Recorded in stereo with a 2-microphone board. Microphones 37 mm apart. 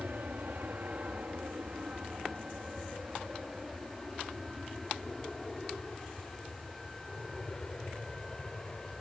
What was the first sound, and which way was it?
An aircraft, 65° right (ahead or behind).